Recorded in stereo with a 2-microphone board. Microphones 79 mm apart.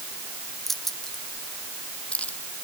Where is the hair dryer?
No hair dryer in this recording.